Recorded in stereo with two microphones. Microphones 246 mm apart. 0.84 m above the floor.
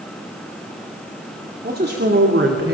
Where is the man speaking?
35° right (ahead or behind), 2.5 m; by 2.7 s 65° right (ahead or behind), 3 m.